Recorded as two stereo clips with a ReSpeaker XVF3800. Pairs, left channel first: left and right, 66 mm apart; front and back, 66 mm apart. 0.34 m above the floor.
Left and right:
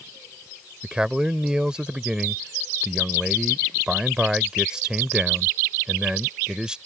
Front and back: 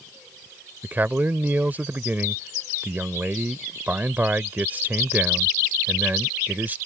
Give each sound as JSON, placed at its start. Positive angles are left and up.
{"t": 0.8, "sound": "a man speaking", "azimuth_deg": -155}